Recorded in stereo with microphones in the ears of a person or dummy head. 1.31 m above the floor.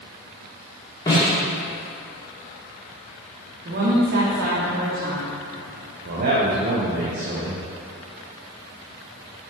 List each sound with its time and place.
1.1 s a snare drum: 20° left (ahead or behind), 1.9 m
3.6 s a woman speaking: 55° right (ahead or behind), 1.5 m
6.0 s a man speaking: 55° right (ahead or behind), 0.8 m